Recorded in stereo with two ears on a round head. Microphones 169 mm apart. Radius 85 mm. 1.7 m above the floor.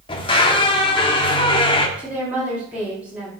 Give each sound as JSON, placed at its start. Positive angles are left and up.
{"t": 0.1, "sound": "a squeak", "side_deg": 30, "distance_m": 1.4}
{"t": 2.0, "sound": "a woman speaking", "side_deg": -5, "distance_m": 5.0}